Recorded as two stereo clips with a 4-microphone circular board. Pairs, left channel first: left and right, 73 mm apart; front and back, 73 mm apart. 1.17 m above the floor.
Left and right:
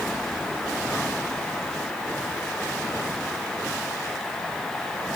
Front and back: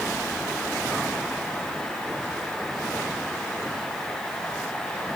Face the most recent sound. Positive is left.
No sound to turn to.